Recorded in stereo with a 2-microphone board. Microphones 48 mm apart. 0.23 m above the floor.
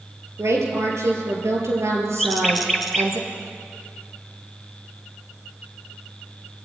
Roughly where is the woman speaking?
Right.